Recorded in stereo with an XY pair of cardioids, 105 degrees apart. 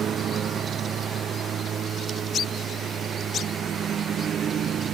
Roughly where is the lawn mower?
Ahead right.